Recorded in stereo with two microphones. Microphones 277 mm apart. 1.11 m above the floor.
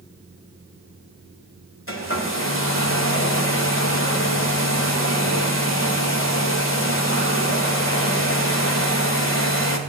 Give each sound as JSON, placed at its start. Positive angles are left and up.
{"t": 1.9, "sound": "a hair dryer", "side_deg": 50, "distance_m": 1.8}